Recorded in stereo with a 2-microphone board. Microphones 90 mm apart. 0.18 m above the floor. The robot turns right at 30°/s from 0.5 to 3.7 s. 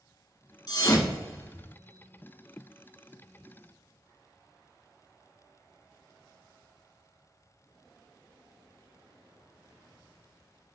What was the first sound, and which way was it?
A thud, 45° left (ahead or behind).